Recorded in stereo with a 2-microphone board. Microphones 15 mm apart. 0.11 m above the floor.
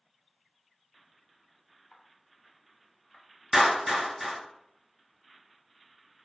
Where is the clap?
5° right (ahead or behind), 0.9 m.